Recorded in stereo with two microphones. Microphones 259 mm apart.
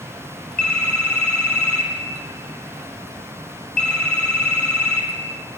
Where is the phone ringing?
80° left, 6 m.